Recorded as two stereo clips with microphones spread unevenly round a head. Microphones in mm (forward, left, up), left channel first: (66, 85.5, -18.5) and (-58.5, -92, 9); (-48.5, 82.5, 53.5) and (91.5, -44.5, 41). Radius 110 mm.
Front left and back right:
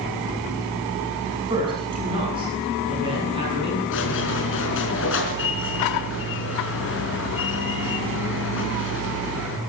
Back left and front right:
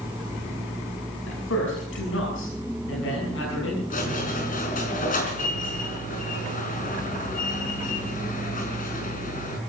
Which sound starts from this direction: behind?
A man speaking, at 1.3 s.